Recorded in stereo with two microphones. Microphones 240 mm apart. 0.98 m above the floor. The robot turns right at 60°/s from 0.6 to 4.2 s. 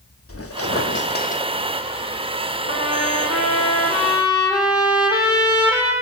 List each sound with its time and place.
0.3 s a squeak: 100° left, 1.0 m; by 1.4 s 150° left, 1.0 m
2.7 s a trumpet: 70° left, 4.5 m; by 5.9 s 160° left, 4.5 m